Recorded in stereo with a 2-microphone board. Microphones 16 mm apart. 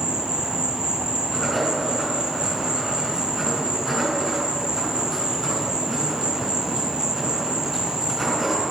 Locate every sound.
0.0 s an insect: 50° right (ahead or behind), 1.6 m
1.3 s writing: 10° left (ahead or behind), 3.5 m